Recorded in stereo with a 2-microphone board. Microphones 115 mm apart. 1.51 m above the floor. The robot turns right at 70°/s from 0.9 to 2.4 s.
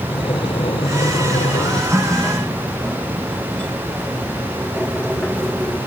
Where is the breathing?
50° left; by 1.8 s 115° left.